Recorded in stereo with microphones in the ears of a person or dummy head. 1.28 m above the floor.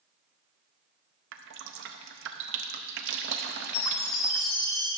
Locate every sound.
1.3 s dripping: 55° right (ahead or behind), 0.5 m
3.7 s a chime: 80° left, 3 m